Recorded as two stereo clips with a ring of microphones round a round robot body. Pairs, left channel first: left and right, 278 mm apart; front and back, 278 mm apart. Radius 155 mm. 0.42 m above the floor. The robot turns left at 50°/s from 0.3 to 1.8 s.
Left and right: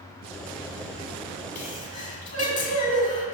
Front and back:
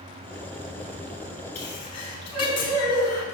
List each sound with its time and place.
1.6 s a sneeze: 40° left, 2 m; by 3.2 s 25° left, 2 m